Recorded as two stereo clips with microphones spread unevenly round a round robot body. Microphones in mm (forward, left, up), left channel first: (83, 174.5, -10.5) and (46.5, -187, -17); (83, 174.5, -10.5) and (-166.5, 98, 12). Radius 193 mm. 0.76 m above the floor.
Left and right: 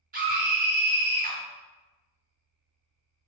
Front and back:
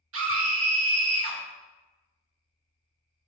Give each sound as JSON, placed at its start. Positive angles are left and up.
{"t": 0.1, "sound": "a scream", "azimuth_deg": -155, "distance_m": 0.7}